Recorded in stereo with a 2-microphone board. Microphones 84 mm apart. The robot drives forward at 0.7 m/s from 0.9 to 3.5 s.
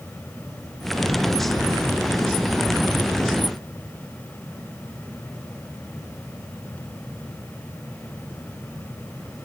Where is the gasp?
No gasp in this recording.